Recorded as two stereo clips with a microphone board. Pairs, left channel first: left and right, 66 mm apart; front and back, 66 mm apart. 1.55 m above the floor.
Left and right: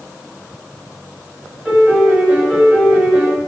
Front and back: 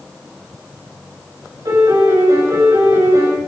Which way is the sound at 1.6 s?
165° right.